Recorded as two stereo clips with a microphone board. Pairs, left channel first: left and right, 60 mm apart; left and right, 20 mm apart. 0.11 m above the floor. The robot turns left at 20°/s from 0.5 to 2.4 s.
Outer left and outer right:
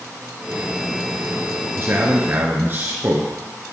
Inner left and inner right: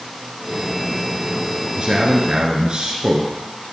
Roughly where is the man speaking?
Right.